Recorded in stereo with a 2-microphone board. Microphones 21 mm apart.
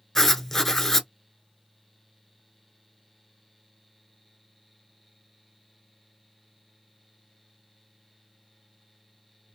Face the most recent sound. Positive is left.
turn(degrees=15)  # may be behind; listen again after turning